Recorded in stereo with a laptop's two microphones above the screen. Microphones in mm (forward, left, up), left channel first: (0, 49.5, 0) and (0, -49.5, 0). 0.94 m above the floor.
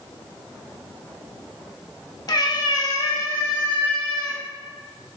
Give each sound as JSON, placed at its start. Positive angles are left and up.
{"t": 2.3, "sound": "a cat meowing", "side_deg": 40, "distance_m": 0.5}